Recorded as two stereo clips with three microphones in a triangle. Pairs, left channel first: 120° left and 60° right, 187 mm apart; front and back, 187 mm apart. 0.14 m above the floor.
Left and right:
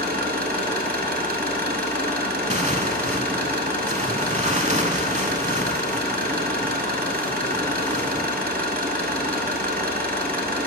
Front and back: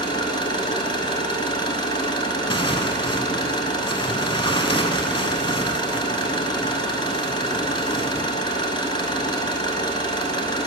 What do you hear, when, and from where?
0.0 s an engine running: 60° right, 1.0 m
2.5 s tearing paper: 45° right, 0.5 m